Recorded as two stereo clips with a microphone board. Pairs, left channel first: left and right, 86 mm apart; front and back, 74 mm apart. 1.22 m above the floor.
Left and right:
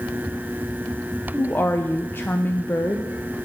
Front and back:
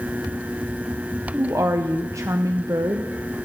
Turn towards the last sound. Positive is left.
turn(degrees=150)